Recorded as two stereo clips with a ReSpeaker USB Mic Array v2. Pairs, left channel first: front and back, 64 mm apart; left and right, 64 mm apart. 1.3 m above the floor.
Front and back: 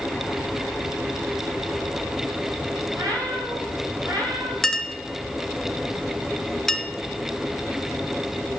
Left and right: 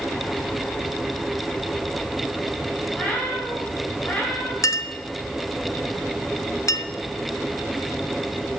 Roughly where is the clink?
Left.